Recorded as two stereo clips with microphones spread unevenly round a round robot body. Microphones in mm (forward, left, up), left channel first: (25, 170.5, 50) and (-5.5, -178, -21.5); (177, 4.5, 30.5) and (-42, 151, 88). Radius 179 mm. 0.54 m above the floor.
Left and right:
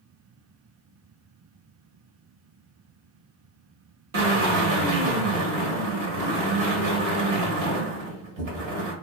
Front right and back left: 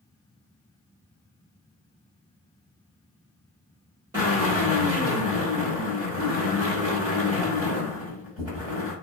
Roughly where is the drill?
Behind right.